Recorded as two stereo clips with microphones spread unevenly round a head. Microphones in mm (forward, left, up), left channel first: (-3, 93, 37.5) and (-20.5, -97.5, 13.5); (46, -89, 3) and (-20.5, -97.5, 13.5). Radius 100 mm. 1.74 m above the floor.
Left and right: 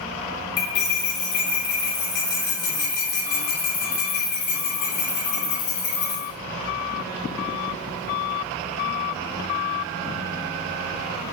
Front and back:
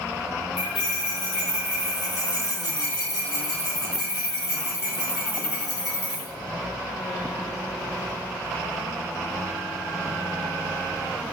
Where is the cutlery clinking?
110° left, 2.5 m.